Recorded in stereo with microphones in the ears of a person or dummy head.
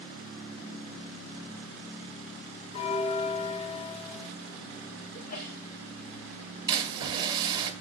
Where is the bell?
30° left (ahead or behind), 0.6 m.